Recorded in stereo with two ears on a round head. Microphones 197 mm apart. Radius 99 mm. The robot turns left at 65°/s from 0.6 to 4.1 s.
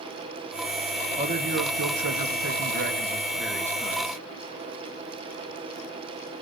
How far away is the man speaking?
About 1.8 m.